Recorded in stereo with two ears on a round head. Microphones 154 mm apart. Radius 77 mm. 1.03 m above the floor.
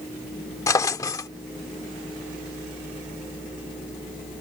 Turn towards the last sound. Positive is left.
turn(degrees=20)  # may be behind; listen again after turning